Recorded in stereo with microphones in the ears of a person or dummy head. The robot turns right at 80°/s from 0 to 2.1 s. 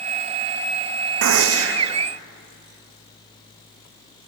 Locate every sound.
1.2 s a gunshot: 115° right, 0.7 m; by 1.9 s 60° right, 0.7 m